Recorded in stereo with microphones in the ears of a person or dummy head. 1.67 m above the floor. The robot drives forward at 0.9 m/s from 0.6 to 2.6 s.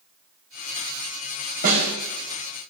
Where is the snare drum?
55° right (ahead or behind), 4 m; by 1.9 s 50° right (ahead or behind), 4 m.